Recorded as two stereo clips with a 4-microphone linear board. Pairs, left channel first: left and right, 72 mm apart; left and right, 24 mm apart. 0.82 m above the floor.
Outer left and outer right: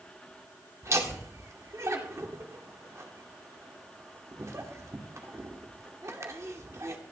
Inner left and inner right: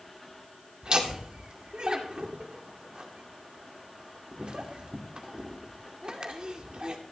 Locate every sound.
0.8 s laughter: 45° right (ahead or behind), 2 m